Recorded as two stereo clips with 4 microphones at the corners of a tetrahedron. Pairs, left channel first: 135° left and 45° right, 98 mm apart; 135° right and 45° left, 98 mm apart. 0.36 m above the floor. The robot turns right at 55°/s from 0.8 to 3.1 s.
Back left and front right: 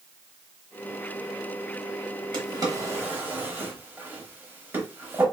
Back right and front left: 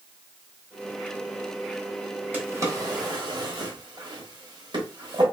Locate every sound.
2.3 s a drawer: 25° right, 0.8 m; by 5.2 s 20° left, 0.8 m